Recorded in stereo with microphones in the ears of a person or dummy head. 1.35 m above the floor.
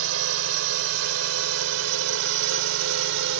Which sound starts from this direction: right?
A drone, at 0.0 s.